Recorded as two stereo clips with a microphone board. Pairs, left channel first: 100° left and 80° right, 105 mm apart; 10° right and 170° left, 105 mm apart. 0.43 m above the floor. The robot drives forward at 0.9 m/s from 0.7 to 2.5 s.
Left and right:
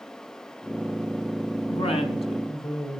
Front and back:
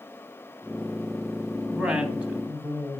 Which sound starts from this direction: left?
A woman speaking, at 1.7 s.